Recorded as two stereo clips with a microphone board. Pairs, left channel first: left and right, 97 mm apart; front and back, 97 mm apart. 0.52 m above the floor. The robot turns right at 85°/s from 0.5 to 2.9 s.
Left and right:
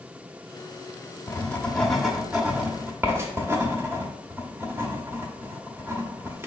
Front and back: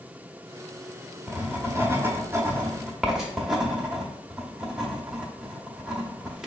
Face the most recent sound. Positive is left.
turn(degrees=-100)